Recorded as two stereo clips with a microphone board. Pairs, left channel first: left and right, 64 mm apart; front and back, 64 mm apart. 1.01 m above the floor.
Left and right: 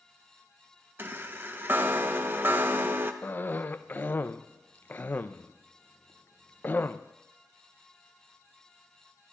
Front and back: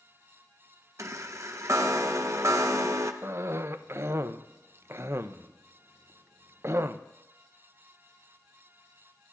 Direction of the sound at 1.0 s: 145° right.